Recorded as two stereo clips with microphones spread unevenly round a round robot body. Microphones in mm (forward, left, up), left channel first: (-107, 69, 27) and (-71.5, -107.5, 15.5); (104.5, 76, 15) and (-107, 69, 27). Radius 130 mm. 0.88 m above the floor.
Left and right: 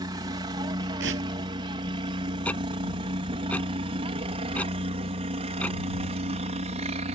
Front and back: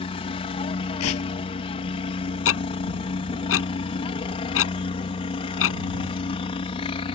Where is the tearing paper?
30° right.